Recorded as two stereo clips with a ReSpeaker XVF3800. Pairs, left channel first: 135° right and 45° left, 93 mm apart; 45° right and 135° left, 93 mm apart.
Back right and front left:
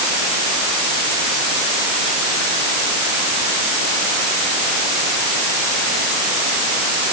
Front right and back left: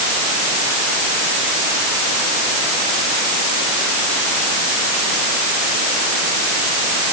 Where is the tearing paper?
I don't hear tearing paper.